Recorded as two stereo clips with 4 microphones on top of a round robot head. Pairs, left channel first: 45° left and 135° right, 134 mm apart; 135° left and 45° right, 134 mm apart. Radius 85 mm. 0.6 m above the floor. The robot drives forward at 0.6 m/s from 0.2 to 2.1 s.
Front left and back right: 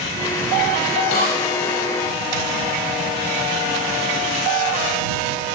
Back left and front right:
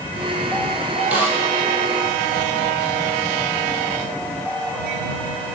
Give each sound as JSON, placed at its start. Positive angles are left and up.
{"t": 1.1, "sound": "a snare drum", "azimuth_deg": 35, "distance_m": 4.5}